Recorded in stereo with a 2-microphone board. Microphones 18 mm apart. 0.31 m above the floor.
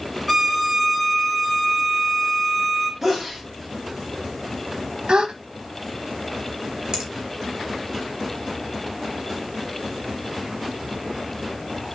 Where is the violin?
5° right (ahead or behind), 2 m.